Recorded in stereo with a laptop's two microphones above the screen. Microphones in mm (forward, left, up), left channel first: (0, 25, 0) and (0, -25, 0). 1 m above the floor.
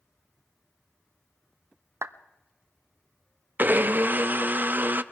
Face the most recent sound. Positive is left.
turn(degrees=-40)  # may be behind; listen again after turning